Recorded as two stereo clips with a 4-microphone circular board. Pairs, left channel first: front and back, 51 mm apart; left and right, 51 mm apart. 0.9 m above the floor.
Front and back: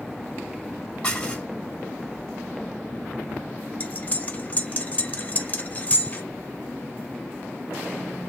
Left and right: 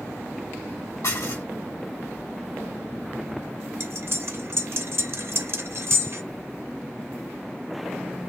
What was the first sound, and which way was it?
Dishes clattering, 75° left.